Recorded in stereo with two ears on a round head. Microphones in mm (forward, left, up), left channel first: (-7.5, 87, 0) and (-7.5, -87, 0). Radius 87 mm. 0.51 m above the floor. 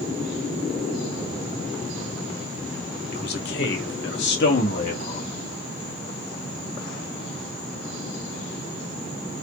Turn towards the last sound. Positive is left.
turn(degrees=50)  # may be behind; listen again after turning